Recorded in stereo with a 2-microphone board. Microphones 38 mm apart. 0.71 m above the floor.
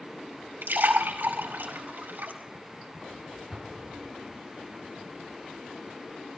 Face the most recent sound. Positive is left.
turn(degrees=-15)  # may be behind; listen again after turning